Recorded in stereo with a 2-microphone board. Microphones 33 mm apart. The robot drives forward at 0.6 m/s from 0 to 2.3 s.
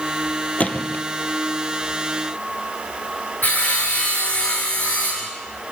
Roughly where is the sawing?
Left.